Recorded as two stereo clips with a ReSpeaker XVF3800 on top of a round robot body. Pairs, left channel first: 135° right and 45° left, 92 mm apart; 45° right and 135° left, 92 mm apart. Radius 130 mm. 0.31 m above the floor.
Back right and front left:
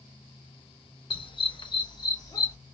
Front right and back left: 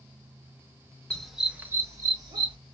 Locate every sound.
1.1 s a dog barking: 125° right, 0.7 m; by 2.6 s 170° left, 1.1 m